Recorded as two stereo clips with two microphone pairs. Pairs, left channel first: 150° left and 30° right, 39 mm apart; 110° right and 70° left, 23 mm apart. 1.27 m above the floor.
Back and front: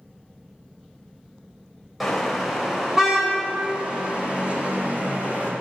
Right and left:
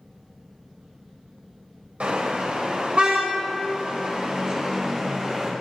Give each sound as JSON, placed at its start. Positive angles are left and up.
{"t": 2.0, "sound": "a car horn", "azimuth_deg": 60, "distance_m": 4.0}